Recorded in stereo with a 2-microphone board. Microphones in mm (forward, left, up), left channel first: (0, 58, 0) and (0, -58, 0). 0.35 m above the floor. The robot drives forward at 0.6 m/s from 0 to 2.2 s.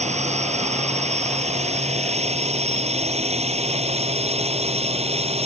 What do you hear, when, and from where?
0.0 s a drone: 70° right (ahead or behind); by 5.5 s 60° right (ahead or behind)